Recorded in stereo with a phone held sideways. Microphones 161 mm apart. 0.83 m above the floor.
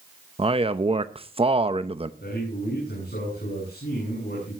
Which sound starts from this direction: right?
A man speaking, at 0.4 s.